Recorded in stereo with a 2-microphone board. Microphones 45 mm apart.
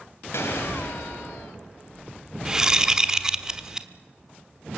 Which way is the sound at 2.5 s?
15° right (ahead or behind).